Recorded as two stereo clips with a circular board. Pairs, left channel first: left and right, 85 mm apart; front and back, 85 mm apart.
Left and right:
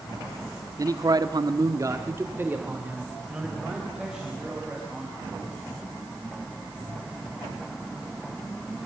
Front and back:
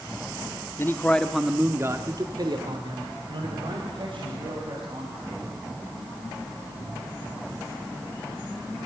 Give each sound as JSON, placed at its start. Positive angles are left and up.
{"t": 0.8, "sound": "a man speaking", "azimuth_deg": -50, "distance_m": 1.4}